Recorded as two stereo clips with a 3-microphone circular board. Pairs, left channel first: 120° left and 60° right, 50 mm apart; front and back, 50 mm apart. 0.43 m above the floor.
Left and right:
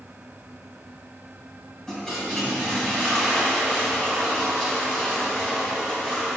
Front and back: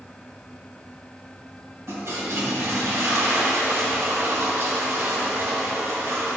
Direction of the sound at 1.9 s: 160° right.